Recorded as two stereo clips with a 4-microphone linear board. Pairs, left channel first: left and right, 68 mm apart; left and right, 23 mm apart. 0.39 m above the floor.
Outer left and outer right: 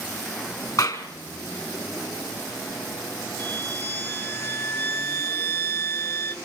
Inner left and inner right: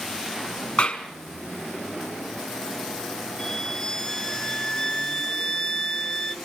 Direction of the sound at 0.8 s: 55° left (ahead or behind).